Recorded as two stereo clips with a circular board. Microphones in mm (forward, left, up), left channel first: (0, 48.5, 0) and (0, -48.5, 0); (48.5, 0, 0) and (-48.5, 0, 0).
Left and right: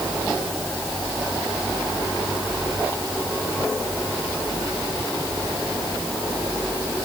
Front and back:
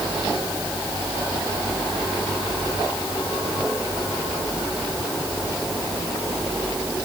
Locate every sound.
Only background noise.